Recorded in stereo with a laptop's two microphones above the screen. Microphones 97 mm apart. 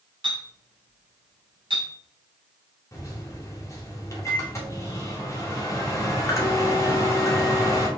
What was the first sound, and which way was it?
A clink, 50° right (ahead or behind).